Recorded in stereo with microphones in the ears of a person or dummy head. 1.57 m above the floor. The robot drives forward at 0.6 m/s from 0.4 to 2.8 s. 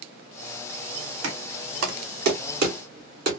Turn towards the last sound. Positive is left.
turn(degrees=-50)  # may be behind; listen again after turning